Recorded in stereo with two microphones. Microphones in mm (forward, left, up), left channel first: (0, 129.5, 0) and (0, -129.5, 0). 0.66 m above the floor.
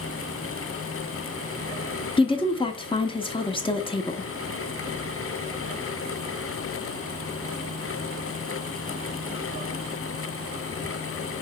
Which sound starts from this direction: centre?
A woman speaking, at 2.2 s.